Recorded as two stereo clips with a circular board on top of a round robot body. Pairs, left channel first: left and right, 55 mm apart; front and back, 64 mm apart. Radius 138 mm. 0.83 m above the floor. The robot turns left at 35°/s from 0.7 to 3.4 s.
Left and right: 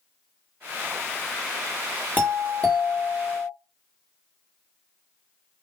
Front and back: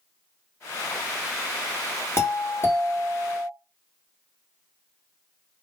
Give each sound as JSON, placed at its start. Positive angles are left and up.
{"t": 2.2, "sound": "a doorbell", "azimuth_deg": 40, "distance_m": 1.6}